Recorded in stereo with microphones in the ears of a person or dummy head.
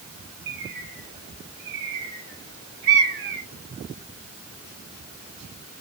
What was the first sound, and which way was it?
A bird, 65° right (ahead or behind).